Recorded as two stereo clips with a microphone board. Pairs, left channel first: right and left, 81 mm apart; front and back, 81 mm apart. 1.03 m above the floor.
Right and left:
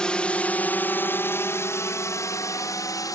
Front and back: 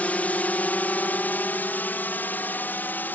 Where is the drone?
30° right; by 3.2 s 60° right.